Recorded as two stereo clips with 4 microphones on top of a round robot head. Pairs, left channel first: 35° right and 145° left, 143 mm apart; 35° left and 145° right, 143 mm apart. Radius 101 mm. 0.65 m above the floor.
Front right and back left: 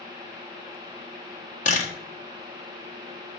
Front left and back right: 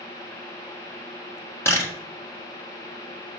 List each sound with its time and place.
1.6 s a camera shutter: 35° right, 1.7 m